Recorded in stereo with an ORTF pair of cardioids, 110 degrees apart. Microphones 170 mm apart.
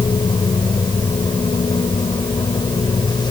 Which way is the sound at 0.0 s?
30° left.